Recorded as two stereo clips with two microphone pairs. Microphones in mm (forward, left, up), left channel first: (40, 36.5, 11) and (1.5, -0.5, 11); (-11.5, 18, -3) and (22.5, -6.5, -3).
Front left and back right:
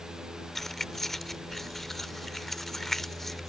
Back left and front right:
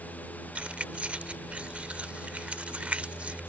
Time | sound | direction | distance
0.6 | keys jangling | 30° right | ?